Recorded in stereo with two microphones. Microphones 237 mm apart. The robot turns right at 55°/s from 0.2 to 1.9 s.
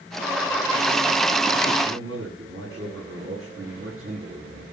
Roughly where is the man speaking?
Right.